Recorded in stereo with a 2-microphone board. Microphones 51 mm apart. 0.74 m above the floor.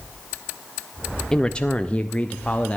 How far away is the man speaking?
About 0.5 m.